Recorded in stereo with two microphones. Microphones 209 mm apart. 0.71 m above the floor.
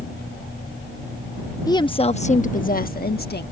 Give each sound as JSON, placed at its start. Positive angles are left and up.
{"t": 1.7, "sound": "a woman speaking", "side_deg": 15}